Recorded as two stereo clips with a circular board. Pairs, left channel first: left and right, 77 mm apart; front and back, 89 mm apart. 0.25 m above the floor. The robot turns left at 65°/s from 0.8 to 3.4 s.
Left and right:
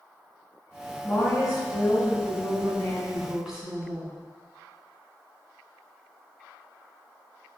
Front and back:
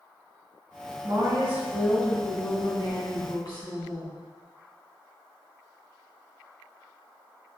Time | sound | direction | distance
1.0 | a woman speaking | 145° left | 2.5 m